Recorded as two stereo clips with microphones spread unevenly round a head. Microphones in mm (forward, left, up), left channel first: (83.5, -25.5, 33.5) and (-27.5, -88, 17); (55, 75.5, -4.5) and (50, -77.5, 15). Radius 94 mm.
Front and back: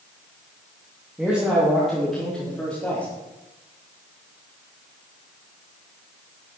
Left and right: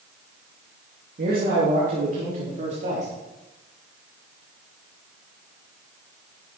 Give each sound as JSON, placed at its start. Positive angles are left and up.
{"t": 1.2, "sound": "a man speaking", "azimuth_deg": -70, "distance_m": 2.5}